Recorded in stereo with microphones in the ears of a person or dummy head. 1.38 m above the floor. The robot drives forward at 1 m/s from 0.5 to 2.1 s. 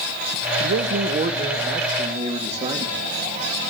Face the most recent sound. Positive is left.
turn(degrees=-25)  # may be behind; listen again after turning